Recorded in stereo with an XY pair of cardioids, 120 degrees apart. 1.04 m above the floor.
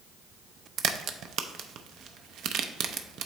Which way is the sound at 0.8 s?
65° right.